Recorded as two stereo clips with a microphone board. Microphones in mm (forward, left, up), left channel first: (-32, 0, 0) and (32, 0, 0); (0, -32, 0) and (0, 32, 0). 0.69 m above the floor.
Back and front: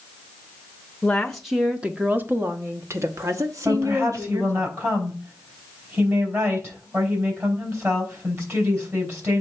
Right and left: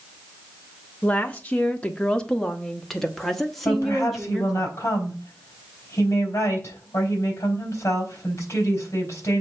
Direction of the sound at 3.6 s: 45° right.